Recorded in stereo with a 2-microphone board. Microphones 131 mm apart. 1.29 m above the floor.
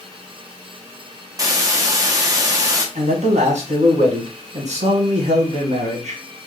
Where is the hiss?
25° right (ahead or behind), 0.8 m.